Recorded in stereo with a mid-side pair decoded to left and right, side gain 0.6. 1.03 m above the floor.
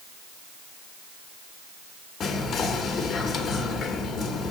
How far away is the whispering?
About 0.8 m.